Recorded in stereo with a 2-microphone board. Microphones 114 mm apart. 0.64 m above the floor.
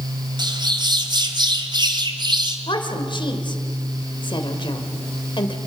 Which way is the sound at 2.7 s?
45° left (ahead or behind).